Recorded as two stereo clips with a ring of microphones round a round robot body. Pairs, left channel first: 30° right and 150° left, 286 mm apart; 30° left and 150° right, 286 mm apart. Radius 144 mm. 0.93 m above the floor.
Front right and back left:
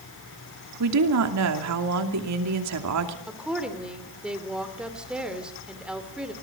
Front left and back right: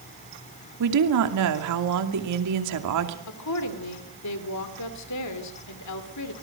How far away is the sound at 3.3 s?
About 2.5 m.